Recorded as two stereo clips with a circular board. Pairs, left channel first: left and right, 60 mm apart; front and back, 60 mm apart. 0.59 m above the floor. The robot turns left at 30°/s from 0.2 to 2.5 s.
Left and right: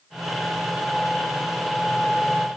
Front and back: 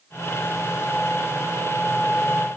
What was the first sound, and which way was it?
Only background noise.